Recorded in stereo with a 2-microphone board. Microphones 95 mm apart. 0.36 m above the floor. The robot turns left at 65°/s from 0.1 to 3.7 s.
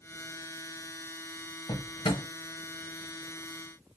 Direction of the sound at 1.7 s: 55° left (ahead or behind).